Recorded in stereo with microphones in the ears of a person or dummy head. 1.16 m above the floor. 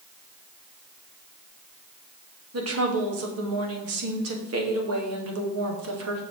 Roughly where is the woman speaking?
Right.